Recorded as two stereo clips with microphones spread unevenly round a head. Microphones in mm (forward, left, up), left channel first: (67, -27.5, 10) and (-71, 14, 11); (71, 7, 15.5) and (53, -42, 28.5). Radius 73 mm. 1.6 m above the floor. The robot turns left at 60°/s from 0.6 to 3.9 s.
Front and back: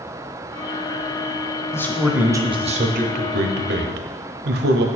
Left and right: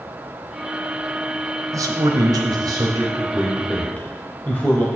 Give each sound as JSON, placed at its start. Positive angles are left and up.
{"t": 1.7, "sound": "a man speaking", "azimuth_deg": -90, "distance_m": 0.8}